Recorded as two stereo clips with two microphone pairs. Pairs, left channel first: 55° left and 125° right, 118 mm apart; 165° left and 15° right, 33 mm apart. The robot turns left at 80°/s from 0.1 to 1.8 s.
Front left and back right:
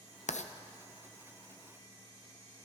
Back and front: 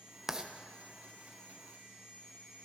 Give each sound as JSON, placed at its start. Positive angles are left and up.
{"t": 0.3, "sound": "writing", "azimuth_deg": 60, "distance_m": 0.7}